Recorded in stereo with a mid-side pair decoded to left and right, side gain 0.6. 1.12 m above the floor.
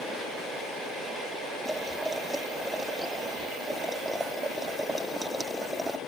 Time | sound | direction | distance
1.6 | boiling | 5° right | ?